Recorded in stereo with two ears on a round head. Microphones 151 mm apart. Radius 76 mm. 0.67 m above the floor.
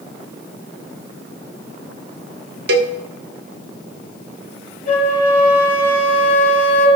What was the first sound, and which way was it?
A cowbell, 55° right (ahead or behind).